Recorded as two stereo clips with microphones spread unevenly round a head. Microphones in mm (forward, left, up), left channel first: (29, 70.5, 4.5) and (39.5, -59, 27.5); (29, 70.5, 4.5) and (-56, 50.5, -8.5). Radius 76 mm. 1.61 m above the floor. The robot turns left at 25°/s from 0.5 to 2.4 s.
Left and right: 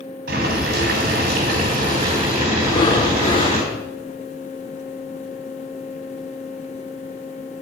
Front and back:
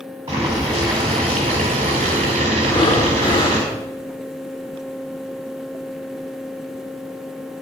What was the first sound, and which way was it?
Boiling, 90° right.